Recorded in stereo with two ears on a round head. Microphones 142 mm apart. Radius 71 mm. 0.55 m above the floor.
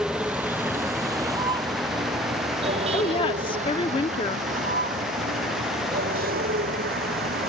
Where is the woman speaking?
30° left (ahead or behind).